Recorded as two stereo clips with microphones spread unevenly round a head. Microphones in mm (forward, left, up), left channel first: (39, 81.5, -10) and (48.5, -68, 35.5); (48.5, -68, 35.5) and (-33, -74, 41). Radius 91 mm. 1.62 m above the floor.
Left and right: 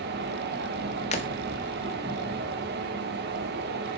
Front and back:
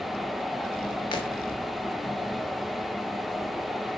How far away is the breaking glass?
About 1.4 m.